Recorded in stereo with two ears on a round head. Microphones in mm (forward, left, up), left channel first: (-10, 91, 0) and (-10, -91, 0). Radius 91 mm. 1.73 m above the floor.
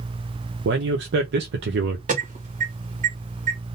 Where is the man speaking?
55° right (ahead or behind), 0.7 m.